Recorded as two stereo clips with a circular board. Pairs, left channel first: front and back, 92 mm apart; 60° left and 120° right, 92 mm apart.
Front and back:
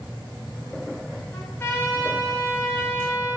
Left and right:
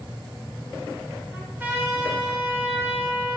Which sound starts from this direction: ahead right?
A trumpet, at 1.3 s.